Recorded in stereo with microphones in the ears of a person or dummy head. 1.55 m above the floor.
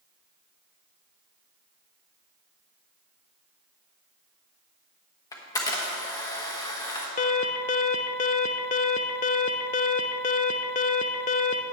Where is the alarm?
35° left (ahead or behind), 0.6 m.